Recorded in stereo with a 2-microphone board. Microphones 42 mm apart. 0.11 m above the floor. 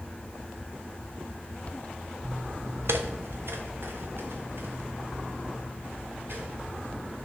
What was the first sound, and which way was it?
Footsteps, 80° right.